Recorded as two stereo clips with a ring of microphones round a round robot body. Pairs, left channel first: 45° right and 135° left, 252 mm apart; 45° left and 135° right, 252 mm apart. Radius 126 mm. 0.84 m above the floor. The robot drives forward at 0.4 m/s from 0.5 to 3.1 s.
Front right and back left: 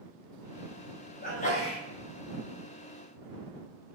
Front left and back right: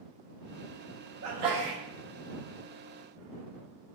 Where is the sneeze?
100° right, 0.9 m; by 1.8 s 115° right, 1.0 m.